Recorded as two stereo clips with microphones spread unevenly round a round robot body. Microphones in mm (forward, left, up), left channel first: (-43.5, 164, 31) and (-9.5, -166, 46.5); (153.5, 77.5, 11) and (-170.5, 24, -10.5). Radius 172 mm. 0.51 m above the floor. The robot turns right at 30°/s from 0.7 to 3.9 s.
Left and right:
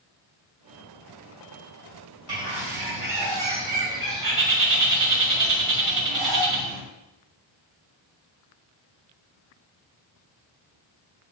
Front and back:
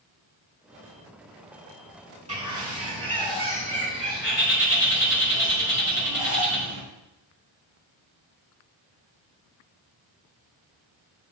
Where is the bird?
100° right, 4.5 m; by 6.8 s 50° right, 4.5 m.